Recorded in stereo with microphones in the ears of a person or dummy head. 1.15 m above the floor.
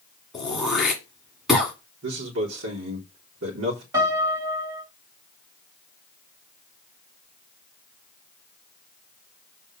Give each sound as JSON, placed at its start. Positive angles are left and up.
{"t": 0.3, "sound": "throat clearing", "side_deg": 0, "distance_m": 1.7}
{"t": 2.0, "sound": "a man speaking", "side_deg": -80, "distance_m": 3.5}
{"t": 3.9, "sound": "a piano", "side_deg": -20, "distance_m": 2.5}